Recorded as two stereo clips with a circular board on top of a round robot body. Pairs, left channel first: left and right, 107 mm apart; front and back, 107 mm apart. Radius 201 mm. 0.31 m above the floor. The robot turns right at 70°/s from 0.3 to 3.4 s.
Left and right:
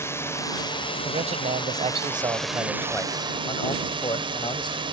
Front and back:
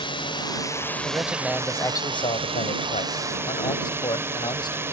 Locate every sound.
0.0 s a drone: 25° left; by 4.9 s 115° right
1.1 s a man speaking: 120° right; by 4.8 s 45° left